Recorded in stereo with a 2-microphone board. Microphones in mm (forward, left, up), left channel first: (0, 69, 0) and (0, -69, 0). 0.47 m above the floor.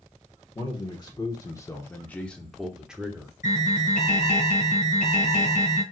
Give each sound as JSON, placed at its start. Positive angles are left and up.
{"t": 0.6, "sound": "a man speaking", "side_deg": 35, "distance_m": 1.0}
{"t": 3.4, "sound": "an alarm", "side_deg": 70, "distance_m": 2.0}